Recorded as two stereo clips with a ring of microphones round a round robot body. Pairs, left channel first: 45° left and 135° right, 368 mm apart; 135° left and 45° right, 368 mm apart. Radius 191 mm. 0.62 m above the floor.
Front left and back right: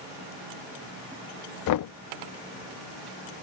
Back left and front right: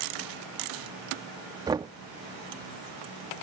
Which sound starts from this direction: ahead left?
Knocking, at 1.7 s.